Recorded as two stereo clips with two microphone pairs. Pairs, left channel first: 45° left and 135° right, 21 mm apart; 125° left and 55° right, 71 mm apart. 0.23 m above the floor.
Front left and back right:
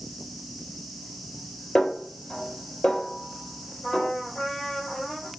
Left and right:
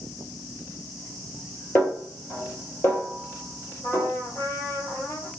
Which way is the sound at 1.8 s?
65° left.